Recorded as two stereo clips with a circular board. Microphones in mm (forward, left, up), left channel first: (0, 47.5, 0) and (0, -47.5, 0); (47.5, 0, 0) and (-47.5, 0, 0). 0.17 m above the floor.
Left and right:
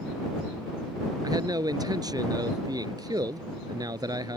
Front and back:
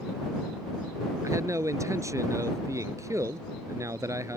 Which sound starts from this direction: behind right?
A man speaking, at 1.2 s.